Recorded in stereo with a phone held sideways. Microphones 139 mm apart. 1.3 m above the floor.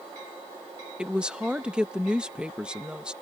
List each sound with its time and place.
1.0 s a woman speaking: 5° right (ahead or behind)